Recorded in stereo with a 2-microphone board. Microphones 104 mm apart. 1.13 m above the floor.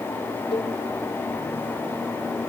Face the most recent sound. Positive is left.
turn(degrees=65)  # may be behind; listen again after turning